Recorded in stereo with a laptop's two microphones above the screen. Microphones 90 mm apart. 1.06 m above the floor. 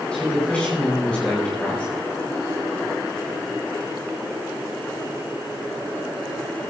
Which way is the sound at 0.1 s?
15° left (ahead or behind).